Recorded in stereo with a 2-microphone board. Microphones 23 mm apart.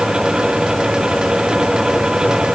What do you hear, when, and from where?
Only background noise.